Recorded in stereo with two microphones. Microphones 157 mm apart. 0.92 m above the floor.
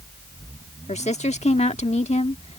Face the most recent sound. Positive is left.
turn(degrees=45)  # may be behind; listen again after turning